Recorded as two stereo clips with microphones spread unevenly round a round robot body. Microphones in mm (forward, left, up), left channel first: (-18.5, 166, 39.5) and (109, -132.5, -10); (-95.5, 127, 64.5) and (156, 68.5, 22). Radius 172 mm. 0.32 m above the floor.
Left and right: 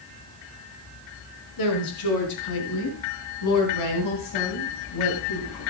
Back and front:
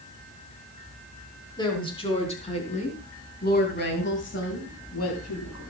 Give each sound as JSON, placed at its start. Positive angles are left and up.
{"t": 1.6, "sound": "a woman speaking", "azimuth_deg": 90, "distance_m": 4.5}